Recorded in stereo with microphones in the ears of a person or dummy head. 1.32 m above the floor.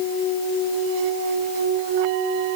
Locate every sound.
Only background noise.